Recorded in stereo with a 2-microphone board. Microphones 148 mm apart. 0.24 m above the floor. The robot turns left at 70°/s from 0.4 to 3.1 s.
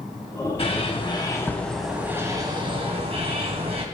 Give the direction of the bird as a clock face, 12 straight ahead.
9 o'clock.